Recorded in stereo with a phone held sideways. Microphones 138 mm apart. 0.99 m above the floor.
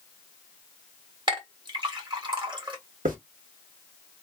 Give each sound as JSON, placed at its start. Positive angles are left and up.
{"t": 1.3, "sound": "a clink", "side_deg": -35, "distance_m": 1.3}
{"t": 3.0, "sound": "a hiss", "side_deg": -85, "distance_m": 1.5}